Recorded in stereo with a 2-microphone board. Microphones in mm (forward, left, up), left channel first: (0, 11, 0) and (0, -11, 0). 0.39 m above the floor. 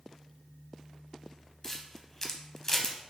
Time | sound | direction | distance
1.6 | a camera shutter | 25° left (ahead or behind) | 0.5 m